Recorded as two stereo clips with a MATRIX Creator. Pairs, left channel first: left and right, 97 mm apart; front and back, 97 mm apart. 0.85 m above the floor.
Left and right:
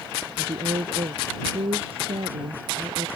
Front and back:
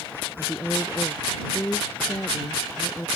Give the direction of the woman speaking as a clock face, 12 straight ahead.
2 o'clock.